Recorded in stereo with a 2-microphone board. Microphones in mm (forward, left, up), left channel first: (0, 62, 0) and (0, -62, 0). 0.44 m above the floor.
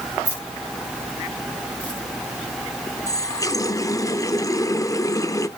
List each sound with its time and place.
0.2 s keys jangling: 15° left (ahead or behind), 5.5 m; by 2.0 s 10° left (ahead or behind), 5 m
3.1 s a running tap: 25° left (ahead or behind), 0.6 m